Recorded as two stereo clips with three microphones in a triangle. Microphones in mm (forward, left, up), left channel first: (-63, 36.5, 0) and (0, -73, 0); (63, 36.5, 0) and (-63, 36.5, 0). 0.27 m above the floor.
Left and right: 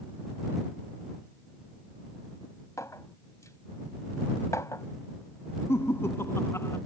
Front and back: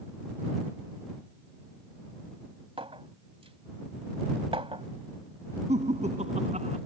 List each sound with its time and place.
2.8 s a clink: 175° left
5.7 s laughter: 170° right